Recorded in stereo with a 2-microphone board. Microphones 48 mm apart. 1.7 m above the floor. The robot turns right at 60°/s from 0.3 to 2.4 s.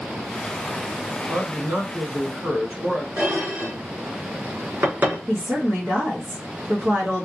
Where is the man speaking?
95° right, 1.5 m; by 3.1 s 30° right, 1.5 m.